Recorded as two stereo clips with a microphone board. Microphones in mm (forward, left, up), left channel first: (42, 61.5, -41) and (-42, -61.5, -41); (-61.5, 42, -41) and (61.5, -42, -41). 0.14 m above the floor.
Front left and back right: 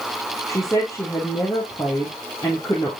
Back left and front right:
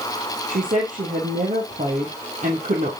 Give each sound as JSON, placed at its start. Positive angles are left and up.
{"t": 0.5, "sound": "a woman speaking", "azimuth_deg": -10, "distance_m": 2.5}